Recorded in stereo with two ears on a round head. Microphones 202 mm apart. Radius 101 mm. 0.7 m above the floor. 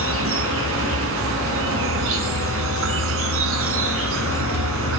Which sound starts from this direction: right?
An insect, at 0.0 s.